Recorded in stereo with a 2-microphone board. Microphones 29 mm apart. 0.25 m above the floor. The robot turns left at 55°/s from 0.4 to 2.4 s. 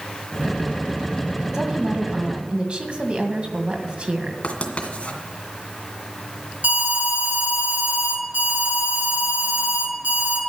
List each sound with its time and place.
1.5 s a woman speaking: 30° right, 2.0 m; by 4.3 s 80° right, 2.0 m
4.4 s writing: 45° left (ahead or behind), 2 m
6.6 s an alarm: 65° right (ahead or behind), 5.5 m